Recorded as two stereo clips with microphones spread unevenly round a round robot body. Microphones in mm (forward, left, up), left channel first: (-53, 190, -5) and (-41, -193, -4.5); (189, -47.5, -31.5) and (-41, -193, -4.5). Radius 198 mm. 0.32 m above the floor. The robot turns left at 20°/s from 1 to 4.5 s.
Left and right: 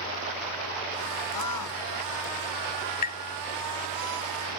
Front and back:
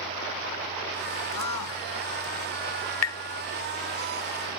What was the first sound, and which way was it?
A scream, 50° left.